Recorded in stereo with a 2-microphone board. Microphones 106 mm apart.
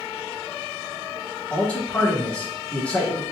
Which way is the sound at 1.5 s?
10° left (ahead or behind).